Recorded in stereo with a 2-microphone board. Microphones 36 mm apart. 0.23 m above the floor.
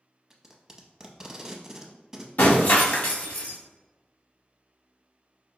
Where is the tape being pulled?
15° right (ahead or behind), 0.6 m.